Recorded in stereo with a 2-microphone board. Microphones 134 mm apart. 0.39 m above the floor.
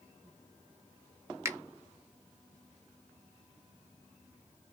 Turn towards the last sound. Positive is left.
turn(degrees=-20)  # may be behind; listen again after turning